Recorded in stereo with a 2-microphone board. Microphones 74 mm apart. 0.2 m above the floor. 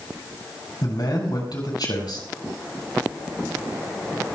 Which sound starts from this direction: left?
A man speaking, at 0.8 s.